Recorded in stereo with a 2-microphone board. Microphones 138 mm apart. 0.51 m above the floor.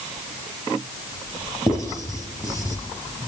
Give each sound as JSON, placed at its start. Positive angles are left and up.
{"t": 1.7, "sound": "writing", "side_deg": 30, "distance_m": 4.5}